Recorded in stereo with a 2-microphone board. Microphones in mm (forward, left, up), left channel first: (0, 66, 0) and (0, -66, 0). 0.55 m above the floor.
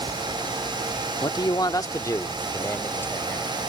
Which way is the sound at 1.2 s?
30° left (ahead or behind).